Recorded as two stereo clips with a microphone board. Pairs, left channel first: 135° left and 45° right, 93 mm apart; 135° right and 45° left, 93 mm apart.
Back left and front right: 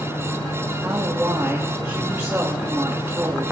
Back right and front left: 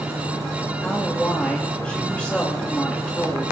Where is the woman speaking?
70° right, 1.3 m.